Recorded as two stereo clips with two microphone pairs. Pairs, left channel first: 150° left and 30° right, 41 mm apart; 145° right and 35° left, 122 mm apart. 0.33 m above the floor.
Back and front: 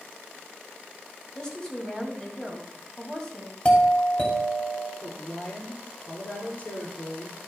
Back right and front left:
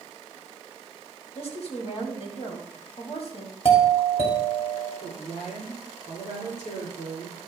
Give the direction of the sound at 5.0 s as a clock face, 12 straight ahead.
5 o'clock.